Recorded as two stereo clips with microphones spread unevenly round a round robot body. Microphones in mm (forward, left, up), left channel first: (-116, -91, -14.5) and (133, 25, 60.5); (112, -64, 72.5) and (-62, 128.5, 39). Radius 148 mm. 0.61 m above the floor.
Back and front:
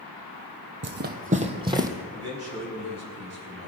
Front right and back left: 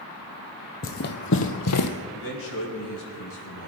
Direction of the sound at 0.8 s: Straight ahead.